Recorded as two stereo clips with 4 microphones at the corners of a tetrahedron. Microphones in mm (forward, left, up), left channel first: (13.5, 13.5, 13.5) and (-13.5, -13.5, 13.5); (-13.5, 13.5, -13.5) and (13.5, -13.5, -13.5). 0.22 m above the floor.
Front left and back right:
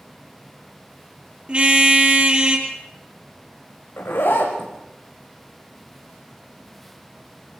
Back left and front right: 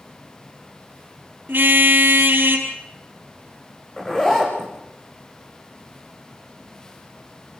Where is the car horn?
75° right, 3 m.